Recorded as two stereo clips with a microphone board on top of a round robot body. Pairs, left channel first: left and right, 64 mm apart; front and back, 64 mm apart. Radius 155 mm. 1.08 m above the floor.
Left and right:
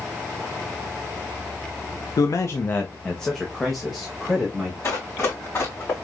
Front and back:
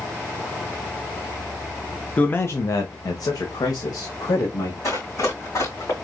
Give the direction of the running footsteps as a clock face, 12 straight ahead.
11 o'clock.